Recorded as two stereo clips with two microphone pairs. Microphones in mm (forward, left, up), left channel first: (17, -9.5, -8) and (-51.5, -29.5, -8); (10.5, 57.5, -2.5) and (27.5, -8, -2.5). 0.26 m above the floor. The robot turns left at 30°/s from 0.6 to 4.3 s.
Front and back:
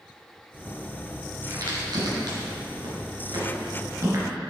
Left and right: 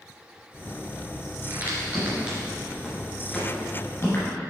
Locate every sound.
1.5 s a crack: 125° right, 2.5 m; by 4.3 s 150° left, 2.5 m